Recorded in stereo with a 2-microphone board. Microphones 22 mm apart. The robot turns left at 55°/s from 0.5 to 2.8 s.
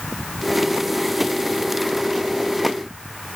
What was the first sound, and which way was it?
Only background noise.